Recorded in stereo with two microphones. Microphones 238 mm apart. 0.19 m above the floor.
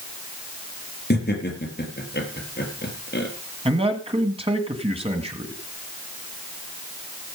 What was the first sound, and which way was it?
Laughter, 45° left (ahead or behind).